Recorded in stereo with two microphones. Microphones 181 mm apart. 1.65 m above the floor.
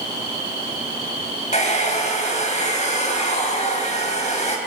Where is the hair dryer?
40° left (ahead or behind), 4.5 m.